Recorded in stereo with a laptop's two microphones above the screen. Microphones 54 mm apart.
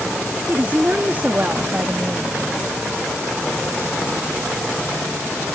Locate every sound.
0.5 s a woman speaking: 30° right (ahead or behind); by 2.3 s 45° right (ahead or behind)